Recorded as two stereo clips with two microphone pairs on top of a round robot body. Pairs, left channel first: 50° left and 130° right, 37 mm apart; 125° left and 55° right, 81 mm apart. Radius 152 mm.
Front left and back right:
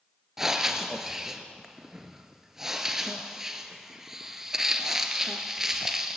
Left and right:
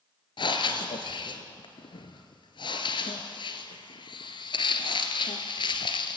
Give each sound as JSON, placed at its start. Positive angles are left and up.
{"t": 0.4, "sound": "breathing", "azimuth_deg": 150, "distance_m": 1.7}